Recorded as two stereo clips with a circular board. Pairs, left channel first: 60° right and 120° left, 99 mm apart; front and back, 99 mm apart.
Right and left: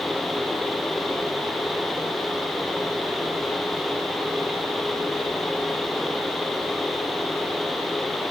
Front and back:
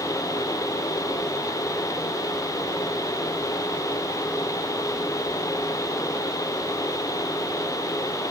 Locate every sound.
Only background noise.